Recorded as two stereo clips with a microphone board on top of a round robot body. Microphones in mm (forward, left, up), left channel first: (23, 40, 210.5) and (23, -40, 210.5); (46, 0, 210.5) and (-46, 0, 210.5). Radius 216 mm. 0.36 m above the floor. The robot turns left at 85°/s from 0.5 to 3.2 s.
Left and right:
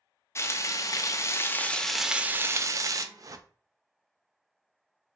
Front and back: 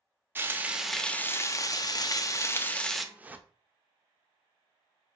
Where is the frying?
125° left, 0.6 m; by 3.0 s 95° right, 0.6 m.